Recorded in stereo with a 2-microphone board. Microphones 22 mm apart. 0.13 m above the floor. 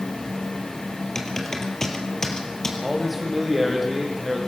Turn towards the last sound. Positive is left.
turn(degrees=0)  # may be behind; listen again after turning